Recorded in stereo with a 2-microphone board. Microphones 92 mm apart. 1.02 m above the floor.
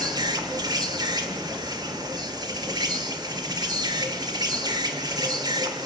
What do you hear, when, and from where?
0.0 s an insect: 50° right (ahead or behind), 1.8 m